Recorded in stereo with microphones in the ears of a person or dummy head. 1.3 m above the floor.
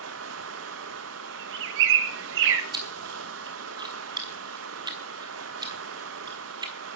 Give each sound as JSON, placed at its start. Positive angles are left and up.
{"t": 0.0, "sound": "running water", "side_deg": -80, "distance_m": 1.1}
{"t": 1.3, "sound": "a bird", "side_deg": -75, "distance_m": 1.6}
{"t": 2.7, "sound": "chewing", "side_deg": -20, "distance_m": 1.3}